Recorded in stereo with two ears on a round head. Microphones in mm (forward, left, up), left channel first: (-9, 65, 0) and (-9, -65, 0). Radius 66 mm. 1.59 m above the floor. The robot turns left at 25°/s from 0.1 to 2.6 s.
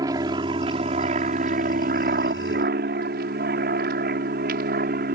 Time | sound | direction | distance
0.0 | an aircraft | 25° right (ahead or behind) | ?